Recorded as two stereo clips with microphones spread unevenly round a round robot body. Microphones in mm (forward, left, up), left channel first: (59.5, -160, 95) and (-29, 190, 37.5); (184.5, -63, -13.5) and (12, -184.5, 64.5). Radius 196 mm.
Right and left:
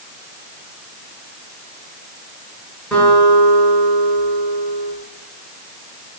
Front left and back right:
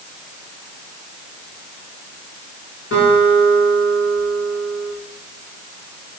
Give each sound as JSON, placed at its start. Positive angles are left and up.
{"t": 2.9, "sound": "a guitar", "azimuth_deg": 15, "distance_m": 7.5}